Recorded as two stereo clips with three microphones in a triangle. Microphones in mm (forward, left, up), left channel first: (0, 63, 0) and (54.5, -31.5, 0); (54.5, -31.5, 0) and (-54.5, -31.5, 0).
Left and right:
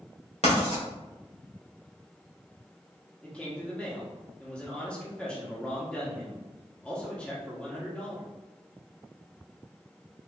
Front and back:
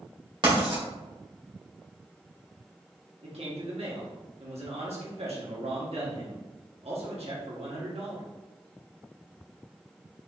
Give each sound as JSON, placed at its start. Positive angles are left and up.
{"t": 0.4, "sound": "writing", "azimuth_deg": 135, "distance_m": 1.9}
{"t": 3.2, "sound": "a man speaking", "azimuth_deg": -160, "distance_m": 1.4}